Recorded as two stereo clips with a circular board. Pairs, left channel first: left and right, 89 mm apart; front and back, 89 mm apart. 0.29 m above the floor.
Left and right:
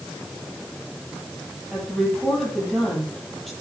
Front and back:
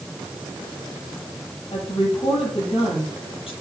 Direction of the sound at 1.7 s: Straight ahead.